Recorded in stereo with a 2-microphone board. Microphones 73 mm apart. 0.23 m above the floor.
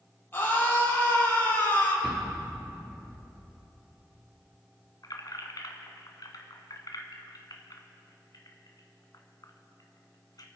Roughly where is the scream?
Left.